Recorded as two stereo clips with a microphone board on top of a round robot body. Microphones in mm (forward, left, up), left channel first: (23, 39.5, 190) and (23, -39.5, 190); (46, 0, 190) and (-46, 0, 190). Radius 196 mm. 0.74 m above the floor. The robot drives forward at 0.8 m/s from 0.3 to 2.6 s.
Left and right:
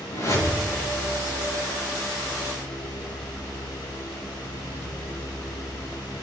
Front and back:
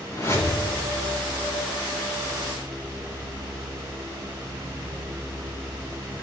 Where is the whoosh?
50° left, 5.5 m; by 0.7 s 55° left, 5.5 m.